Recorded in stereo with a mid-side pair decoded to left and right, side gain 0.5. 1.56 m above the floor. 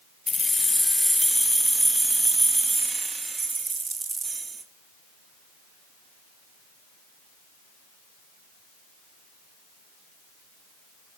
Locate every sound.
0.3 s keys jangling: 25° left, 1.4 m; by 4.6 s 35° right, 3.5 m